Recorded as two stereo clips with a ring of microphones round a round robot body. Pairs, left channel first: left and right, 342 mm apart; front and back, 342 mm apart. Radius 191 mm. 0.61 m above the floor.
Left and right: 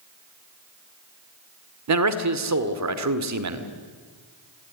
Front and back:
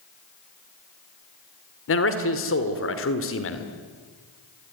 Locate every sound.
1.9 s a man speaking: 55° right, 2.0 m